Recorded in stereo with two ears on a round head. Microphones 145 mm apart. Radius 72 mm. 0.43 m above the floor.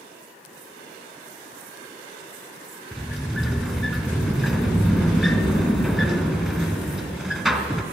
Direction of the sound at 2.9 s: Centre (ahead or behind).